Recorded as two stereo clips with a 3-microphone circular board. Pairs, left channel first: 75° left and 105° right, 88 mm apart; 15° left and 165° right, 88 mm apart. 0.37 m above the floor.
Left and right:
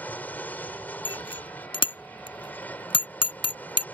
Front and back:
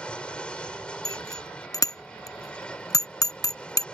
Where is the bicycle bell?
60° left.